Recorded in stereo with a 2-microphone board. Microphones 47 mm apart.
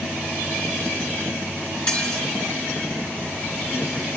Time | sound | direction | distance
1.9 | dishes clattering | 20° left (ahead or behind) | 4.5 m